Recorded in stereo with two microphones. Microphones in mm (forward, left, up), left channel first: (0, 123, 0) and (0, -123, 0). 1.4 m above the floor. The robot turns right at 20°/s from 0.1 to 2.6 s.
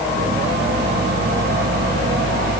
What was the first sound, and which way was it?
Only background noise.